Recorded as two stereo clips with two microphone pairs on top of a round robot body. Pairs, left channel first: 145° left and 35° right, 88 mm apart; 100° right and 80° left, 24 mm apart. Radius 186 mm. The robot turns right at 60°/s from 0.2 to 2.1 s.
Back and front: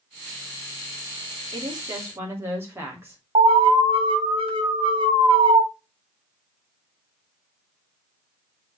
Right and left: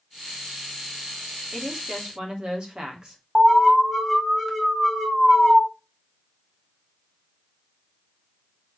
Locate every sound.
1.5 s a woman speaking: 5° right, 3 m; by 3.2 s 30° left, 3 m
3.4 s an alarm: 5° right, 2.5 m